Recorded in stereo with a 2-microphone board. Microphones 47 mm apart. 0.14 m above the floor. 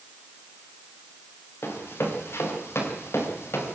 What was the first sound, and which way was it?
Running footsteps, 70° left (ahead or behind).